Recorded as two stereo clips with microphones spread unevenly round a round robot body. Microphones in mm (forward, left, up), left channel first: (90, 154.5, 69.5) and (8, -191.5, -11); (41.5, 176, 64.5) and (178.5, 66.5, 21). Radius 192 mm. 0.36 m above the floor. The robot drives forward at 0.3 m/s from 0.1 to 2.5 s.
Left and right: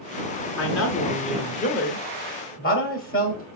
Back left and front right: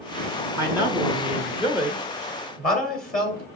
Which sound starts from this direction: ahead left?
A man speaking, at 0.6 s.